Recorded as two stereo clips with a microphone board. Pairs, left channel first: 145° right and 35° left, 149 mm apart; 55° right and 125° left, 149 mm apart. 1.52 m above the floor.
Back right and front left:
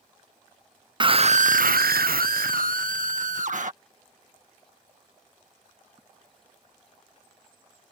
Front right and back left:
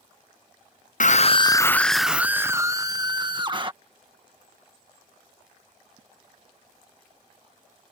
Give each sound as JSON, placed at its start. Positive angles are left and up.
{"t": 1.0, "sound": "a scream", "azimuth_deg": -25}